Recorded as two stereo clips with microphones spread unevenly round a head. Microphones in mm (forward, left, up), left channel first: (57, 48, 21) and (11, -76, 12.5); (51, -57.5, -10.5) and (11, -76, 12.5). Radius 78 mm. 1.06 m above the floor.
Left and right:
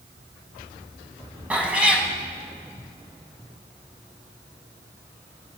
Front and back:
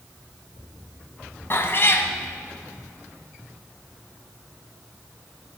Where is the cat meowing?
30° right, 1.7 m.